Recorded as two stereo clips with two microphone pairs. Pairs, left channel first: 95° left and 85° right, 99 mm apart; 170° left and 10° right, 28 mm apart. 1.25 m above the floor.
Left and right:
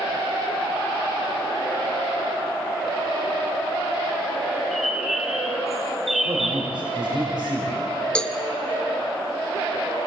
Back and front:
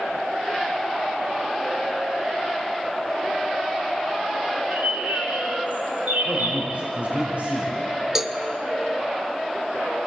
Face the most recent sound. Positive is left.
turn(degrees=35)